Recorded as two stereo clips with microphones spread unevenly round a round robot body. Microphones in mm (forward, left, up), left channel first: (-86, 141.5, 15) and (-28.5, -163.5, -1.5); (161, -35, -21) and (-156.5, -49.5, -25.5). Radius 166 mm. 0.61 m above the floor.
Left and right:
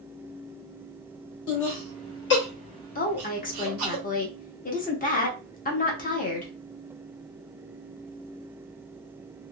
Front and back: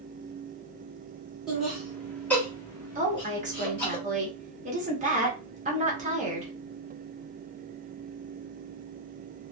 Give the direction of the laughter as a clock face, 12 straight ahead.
9 o'clock.